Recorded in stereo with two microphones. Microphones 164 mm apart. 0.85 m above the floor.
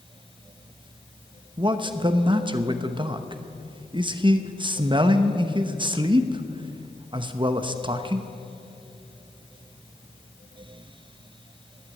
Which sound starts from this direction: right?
A man speaking, at 1.6 s.